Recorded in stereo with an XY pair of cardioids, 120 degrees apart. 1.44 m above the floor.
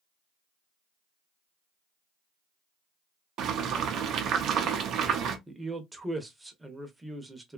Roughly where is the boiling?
Ahead right.